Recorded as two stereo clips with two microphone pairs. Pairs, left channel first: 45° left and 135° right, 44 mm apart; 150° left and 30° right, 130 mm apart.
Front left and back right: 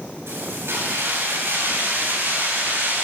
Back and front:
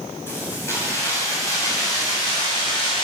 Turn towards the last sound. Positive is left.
turn(degrees=-165)